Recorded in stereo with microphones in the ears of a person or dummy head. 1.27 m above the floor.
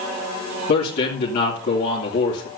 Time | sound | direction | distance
0.7 | a man speaking | 60° left (ahead or behind) | 2.5 m